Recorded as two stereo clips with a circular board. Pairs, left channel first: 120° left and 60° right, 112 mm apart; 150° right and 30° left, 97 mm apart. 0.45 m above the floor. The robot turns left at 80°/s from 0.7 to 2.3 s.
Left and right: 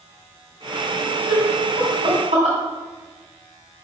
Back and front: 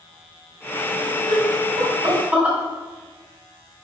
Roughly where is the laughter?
Ahead left.